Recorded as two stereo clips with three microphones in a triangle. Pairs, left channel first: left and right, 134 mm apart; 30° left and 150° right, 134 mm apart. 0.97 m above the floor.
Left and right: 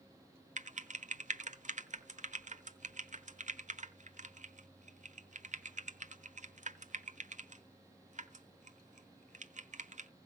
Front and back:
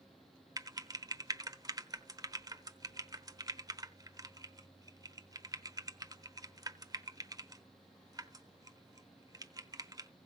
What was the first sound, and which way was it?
Typing on a keyboard, 90° right.